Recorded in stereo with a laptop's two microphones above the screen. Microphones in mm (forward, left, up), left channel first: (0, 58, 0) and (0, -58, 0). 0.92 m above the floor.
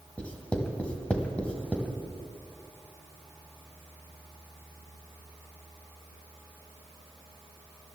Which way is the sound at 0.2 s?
10° left (ahead or behind).